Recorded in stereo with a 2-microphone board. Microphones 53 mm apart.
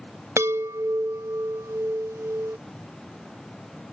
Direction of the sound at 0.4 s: 65° right (ahead or behind).